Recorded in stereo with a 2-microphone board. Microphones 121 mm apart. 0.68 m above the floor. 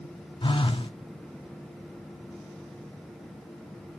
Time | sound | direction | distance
0.4 | a phone buzzing | 45° left (ahead or behind) | 1.0 m